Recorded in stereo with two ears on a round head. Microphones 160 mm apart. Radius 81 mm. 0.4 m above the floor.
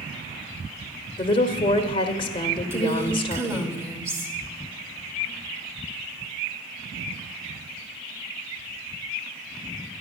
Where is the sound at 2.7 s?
15° right (ahead or behind), 1.1 m.